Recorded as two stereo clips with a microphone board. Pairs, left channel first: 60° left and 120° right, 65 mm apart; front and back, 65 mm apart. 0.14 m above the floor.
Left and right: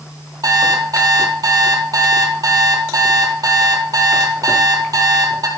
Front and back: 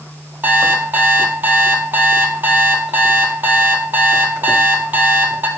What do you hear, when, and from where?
0.4 s an alarm clock: 120° right, 1.9 m